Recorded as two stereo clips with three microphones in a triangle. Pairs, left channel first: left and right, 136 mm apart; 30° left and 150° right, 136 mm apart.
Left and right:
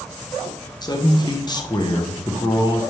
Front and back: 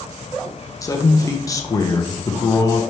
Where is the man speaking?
70° left, 0.7 m.